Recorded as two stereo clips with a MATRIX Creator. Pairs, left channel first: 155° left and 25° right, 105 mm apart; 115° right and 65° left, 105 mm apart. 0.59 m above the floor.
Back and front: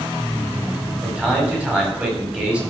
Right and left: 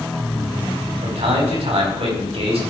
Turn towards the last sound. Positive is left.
turn(degrees=55)